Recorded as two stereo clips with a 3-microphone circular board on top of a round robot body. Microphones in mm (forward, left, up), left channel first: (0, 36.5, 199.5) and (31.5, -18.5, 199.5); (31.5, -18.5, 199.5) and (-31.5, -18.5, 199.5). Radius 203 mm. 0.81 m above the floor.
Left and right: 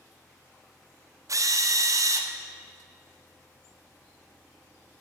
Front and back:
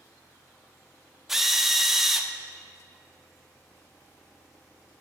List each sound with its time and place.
1.3 s a drill: 95° right, 1.4 m